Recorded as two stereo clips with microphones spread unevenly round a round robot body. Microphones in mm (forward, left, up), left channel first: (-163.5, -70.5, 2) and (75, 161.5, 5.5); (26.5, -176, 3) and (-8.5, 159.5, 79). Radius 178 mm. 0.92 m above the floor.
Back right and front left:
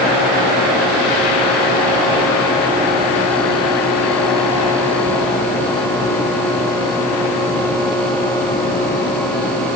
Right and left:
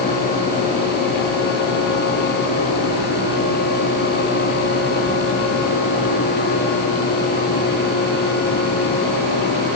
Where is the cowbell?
No cowbell in this recording.